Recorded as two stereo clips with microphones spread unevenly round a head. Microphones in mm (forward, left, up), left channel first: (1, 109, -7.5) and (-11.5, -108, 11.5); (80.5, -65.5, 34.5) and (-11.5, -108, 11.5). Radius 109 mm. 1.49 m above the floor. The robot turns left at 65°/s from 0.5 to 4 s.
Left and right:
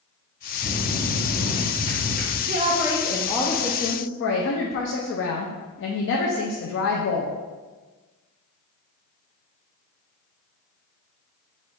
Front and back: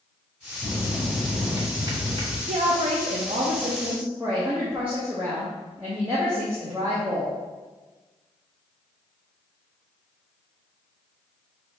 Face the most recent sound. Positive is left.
turn(degrees=120)